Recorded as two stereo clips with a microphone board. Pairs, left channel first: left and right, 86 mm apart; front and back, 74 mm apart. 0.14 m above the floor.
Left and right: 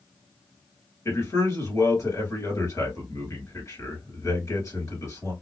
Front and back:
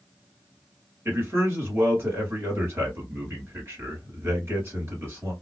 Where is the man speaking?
130° left, 2 m.